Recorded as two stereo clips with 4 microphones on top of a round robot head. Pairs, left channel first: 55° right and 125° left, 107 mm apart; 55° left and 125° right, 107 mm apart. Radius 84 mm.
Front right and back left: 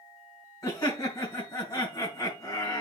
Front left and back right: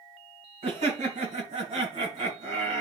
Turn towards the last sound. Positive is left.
turn(degrees=-110)